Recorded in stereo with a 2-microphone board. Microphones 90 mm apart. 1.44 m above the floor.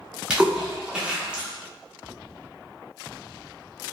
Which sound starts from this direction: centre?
A splash, at 0.3 s.